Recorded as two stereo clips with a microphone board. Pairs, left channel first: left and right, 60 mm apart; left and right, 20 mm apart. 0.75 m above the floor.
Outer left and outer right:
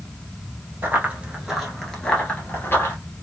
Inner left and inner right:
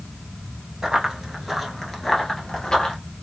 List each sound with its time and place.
0.8 s running footsteps: 30° right (ahead or behind), 0.9 m; by 3.0 s 40° left (ahead or behind), 1.1 m